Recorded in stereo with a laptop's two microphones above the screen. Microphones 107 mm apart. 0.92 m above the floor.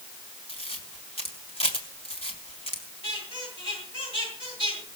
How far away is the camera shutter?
About 2.5 m.